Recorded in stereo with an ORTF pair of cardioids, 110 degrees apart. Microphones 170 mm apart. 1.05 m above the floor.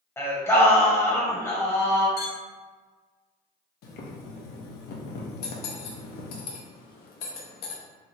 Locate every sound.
0.2 s singing: 15° left, 0.9 m
2.2 s a clink: 70° left, 1.4 m
3.8 s boiling: 65° left, 0.7 m
5.4 s cutlery clinking: 70° left, 0.7 m